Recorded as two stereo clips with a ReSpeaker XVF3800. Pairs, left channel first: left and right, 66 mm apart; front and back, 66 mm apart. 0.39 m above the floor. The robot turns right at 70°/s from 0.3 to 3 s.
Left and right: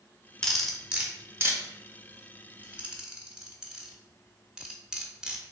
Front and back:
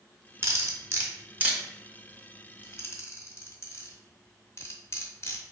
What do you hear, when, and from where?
0.4 s cutlery clinking: 165° left, 0.8 m; by 5.4 s 15° right, 0.8 m